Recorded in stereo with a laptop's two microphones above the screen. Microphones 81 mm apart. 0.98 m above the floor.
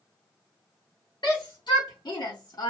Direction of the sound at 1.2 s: 75° left (ahead or behind).